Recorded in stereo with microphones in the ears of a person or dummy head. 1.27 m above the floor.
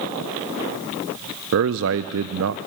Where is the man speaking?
65° right (ahead or behind), 0.6 m.